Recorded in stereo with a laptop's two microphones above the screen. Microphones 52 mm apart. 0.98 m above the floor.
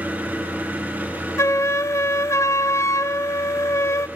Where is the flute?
70° left (ahead or behind), 0.6 m.